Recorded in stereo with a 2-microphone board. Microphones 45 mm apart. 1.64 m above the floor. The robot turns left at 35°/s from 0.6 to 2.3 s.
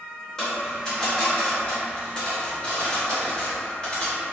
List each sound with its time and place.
0.4 s a dropped coin: 10° left (ahead or behind), 1.0 m; by 4.2 s 20° left (ahead or behind), 1.0 m